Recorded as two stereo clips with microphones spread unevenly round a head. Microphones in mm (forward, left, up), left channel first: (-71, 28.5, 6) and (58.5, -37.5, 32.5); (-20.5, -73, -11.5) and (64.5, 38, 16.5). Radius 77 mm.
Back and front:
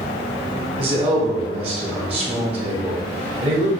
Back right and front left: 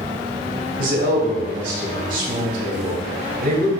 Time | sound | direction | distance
0.8 | a man speaking | 25° left | 1.6 m